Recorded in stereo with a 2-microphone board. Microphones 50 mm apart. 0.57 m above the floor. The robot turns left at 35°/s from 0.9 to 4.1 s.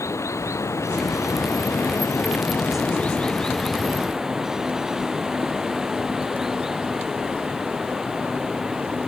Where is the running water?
100° left; by 9.1 s 10° right.